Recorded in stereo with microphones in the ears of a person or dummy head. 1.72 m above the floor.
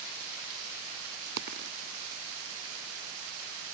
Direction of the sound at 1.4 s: 60° right (ahead or behind).